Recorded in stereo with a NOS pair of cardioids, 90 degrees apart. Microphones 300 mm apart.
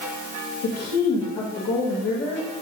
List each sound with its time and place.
0.6 s a woman speaking: 55° left, 2 m